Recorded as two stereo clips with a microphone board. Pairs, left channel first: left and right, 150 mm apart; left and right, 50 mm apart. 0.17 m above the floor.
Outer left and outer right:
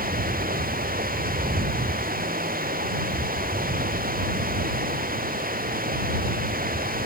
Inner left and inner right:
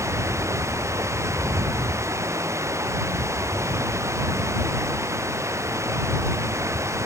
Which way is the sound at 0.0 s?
75° right (ahead or behind).